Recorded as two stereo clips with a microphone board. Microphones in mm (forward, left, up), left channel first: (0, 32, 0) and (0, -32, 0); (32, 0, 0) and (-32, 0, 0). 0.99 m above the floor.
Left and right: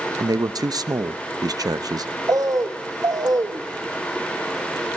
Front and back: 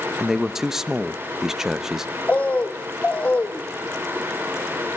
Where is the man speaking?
100° right, 0.7 m.